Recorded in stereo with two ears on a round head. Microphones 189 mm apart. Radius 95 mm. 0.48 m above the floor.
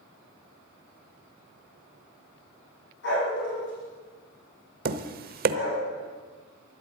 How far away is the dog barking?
About 7.5 m.